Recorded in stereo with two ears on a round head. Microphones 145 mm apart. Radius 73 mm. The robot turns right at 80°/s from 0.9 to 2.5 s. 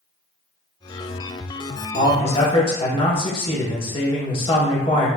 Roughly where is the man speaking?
Left.